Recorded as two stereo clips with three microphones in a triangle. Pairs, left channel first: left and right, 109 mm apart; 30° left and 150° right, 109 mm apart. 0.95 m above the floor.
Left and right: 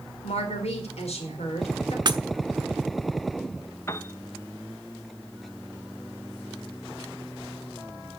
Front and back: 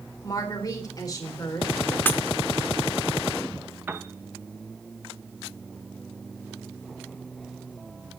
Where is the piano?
145° left, 1.1 m.